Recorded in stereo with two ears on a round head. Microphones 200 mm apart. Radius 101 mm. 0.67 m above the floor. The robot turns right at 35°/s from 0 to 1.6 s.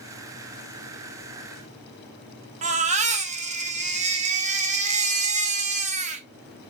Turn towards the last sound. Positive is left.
turn(degrees=-30)  # may be behind; listen again after turning